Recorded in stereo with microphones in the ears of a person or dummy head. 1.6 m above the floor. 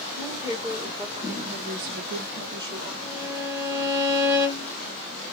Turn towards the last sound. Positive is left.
turn(degrees=-20)  # may be behind; listen again after turning